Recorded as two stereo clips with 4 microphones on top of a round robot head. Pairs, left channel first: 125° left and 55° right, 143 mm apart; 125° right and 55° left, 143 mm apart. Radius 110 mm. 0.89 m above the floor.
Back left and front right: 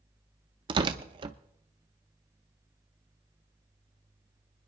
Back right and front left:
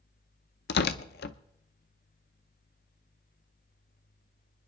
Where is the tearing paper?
115° right, 0.6 m.